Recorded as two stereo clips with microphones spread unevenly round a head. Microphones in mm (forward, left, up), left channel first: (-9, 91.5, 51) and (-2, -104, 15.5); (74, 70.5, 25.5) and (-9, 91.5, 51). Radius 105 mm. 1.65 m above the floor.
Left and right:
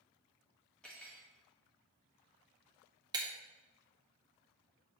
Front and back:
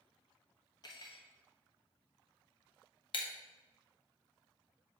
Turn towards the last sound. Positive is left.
turn(degrees=-15)